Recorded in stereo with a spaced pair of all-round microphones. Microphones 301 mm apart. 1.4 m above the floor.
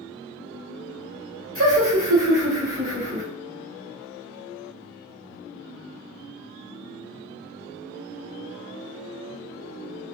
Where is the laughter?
50° right (ahead or behind), 1.1 m; by 3.2 s 40° right (ahead or behind), 1.5 m.